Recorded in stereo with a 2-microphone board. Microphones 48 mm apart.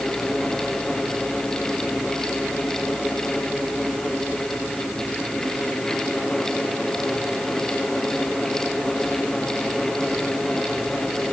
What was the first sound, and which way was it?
Only background noise.